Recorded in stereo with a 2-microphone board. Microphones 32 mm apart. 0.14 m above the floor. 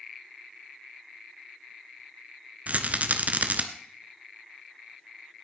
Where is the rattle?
50° right (ahead or behind), 1.0 m.